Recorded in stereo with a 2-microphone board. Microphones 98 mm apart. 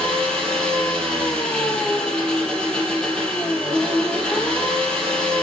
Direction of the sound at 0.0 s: 10° left (ahead or behind).